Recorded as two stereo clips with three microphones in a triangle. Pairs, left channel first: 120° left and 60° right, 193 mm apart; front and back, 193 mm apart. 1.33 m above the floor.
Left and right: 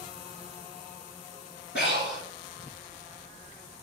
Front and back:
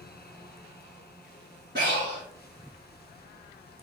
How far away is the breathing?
About 3 m.